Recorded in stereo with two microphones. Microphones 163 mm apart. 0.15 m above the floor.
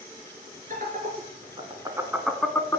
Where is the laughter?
55° right (ahead or behind), 2 m; by 2.8 s 20° left (ahead or behind), 1.5 m.